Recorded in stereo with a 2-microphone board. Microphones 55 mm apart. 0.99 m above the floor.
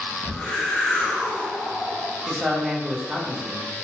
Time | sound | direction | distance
0.2 | a whoosh | 15° left (ahead or behind) | 0.6 m
2.3 | a man speaking | 5° right (ahead or behind) | 0.6 m